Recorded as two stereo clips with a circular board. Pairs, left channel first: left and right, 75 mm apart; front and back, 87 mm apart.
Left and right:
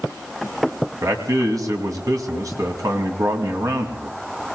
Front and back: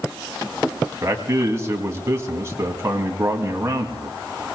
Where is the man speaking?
125° right, 2.5 m.